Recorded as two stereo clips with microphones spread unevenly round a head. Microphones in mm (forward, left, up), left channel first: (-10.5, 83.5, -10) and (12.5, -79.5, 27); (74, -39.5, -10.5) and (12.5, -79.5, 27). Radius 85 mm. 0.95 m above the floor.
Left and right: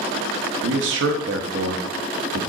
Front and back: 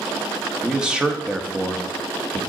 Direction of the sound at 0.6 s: 60° right.